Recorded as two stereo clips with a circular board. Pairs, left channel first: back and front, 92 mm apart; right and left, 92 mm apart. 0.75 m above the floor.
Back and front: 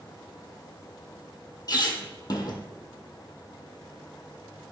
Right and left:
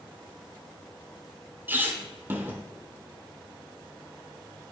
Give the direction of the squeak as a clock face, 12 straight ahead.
7 o'clock.